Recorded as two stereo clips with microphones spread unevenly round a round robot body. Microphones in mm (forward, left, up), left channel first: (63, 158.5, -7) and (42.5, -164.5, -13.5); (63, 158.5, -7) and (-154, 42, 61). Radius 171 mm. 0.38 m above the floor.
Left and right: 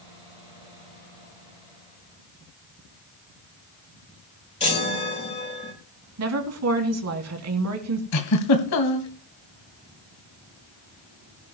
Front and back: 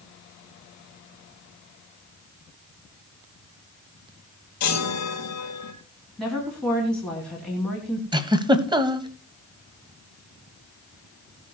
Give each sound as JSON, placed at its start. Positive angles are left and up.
{"t": 4.6, "sound": "a chime", "azimuth_deg": 15, "distance_m": 5.0}
{"t": 6.2, "sound": "a woman speaking", "azimuth_deg": -55, "distance_m": 3.0}
{"t": 8.1, "sound": "a giggle", "azimuth_deg": 130, "distance_m": 1.7}